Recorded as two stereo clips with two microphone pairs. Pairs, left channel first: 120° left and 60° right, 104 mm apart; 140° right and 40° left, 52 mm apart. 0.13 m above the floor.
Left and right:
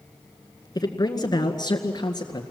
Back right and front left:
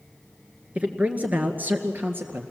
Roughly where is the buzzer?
No buzzer in this recording.